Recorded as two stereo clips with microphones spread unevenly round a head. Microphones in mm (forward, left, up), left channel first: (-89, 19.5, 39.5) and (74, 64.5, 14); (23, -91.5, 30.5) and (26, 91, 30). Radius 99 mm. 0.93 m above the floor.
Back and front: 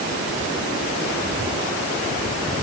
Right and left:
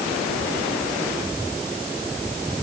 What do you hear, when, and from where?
Only background noise.